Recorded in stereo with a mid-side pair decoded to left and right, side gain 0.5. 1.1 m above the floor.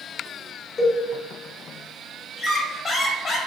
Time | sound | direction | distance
0.8 | a cowbell | 45° left | 0.9 m
2.4 | a squeak | 45° left | 0.8 m